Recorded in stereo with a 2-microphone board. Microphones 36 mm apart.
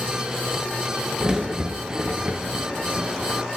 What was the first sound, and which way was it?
A crack, 20° right (ahead or behind).